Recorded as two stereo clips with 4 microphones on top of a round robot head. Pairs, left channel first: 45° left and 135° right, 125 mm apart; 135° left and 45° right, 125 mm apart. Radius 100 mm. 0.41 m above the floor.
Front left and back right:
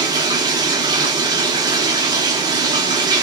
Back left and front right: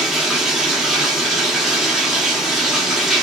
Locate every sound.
0.0 s running water: 130° right, 0.9 m